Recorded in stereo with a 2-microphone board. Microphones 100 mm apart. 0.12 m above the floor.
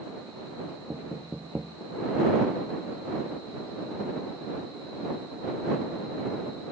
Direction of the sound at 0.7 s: 15° right (ahead or behind).